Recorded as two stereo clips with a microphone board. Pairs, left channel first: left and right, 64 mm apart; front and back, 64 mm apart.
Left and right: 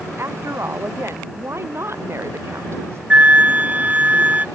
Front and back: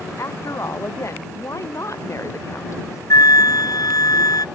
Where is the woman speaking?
40° right.